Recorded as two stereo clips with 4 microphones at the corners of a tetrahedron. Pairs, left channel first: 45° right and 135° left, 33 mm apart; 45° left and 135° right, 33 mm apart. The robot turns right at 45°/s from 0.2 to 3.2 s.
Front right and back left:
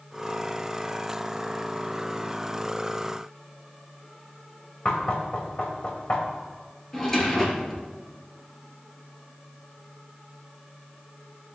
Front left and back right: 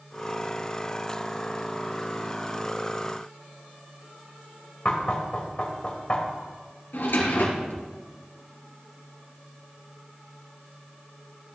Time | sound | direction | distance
4.8 | knocking | 5° right | 1.6 m
6.9 | a drawer | 30° left | 2.5 m